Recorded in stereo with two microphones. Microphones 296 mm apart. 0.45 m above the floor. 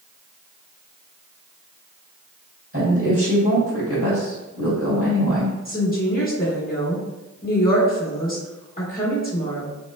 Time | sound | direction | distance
2.7 | a woman speaking | 50° right (ahead or behind) | 2.0 m
5.7 | a woman speaking | 30° left (ahead or behind) | 1.2 m